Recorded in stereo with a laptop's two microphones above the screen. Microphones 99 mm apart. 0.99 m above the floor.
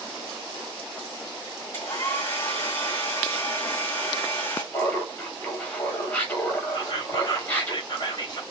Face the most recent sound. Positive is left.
turn(degrees=45)  # may be behind; listen again after turning